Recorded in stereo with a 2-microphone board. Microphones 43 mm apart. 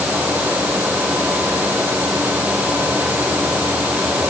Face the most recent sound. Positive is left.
No sound to turn to.